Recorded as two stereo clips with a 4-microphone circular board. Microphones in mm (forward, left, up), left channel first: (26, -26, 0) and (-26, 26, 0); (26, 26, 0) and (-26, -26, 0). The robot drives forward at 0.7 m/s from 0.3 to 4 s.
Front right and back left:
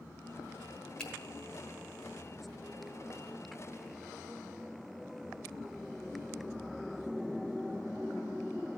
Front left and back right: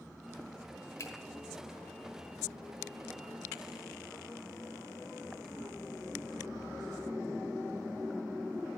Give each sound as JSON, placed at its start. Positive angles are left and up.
{"t": 1.0, "sound": "a finger snap", "azimuth_deg": 25, "distance_m": 1.4}